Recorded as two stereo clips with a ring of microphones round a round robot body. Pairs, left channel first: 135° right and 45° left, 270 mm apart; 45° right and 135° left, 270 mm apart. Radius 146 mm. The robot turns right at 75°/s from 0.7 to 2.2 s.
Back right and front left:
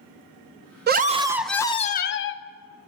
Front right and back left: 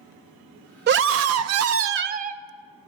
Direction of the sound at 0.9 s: 90° left.